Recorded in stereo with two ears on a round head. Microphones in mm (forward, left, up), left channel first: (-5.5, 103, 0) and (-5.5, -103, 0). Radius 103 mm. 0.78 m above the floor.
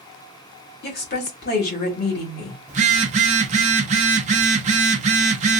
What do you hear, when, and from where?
0.8 s a woman speaking: 45° left (ahead or behind), 1.4 m
2.7 s a phone buzzing: 30° right (ahead or behind), 0.5 m